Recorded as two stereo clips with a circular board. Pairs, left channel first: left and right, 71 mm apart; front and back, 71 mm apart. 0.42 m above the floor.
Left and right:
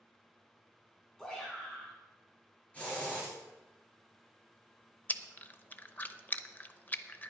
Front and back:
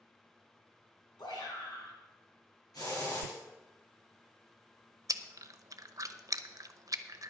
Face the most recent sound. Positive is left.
turn(degrees=150)